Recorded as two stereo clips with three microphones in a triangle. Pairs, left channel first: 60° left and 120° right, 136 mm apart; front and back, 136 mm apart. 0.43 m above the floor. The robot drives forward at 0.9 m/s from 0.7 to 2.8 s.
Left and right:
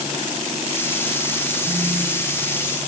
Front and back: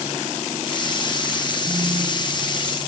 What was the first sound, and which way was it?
A phone buzzing, 160° right.